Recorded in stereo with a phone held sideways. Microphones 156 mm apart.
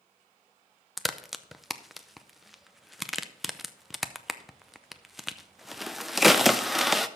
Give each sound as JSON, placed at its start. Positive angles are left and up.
{"t": 1.0, "sound": "a crack", "side_deg": 0, "distance_m": 0.5}